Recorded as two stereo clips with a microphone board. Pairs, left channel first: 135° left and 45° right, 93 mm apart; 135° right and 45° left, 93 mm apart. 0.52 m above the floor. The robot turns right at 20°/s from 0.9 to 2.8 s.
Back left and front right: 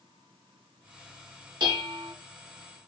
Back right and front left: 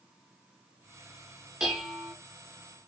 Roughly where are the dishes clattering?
Ahead right.